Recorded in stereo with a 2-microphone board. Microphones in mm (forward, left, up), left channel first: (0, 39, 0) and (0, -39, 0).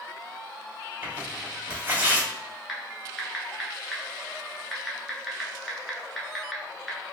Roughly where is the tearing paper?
Right.